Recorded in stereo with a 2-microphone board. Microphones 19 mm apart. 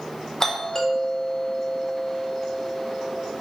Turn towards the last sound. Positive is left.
turn(degrees=25)  # may be behind; listen again after turning